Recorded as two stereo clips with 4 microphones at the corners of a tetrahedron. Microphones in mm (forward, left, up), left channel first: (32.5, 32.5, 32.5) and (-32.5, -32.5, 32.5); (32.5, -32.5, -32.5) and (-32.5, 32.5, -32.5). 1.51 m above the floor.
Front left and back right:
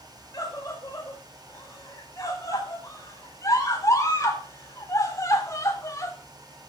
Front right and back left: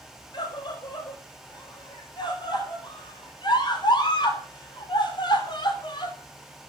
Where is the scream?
10° right, 7.5 m.